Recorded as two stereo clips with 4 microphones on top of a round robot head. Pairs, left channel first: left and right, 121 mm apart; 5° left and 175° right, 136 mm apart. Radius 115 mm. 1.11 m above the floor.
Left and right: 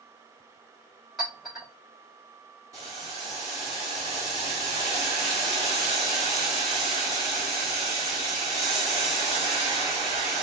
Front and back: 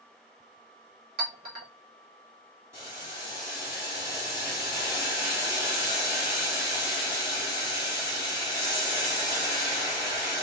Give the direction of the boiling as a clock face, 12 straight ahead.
4 o'clock.